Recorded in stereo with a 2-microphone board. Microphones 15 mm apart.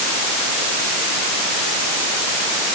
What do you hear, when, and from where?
Only background noise.